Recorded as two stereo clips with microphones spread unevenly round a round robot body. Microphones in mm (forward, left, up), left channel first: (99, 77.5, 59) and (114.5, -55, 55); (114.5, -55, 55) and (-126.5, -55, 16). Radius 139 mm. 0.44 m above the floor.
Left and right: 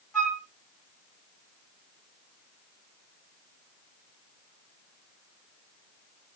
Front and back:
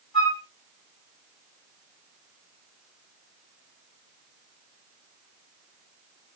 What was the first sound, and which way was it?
A flute, 10° left.